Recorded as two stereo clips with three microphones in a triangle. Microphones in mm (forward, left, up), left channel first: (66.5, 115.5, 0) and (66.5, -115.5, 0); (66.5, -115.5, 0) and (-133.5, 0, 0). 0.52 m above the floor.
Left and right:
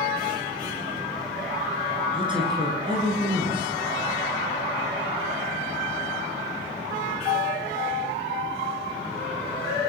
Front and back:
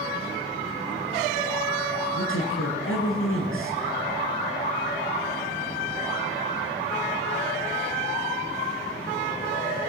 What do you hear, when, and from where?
2.1 s a man speaking: 20° right, 9 m